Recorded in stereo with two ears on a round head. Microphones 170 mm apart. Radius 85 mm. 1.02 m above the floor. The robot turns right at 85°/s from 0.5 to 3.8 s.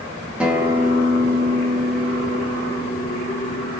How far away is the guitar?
About 0.8 m.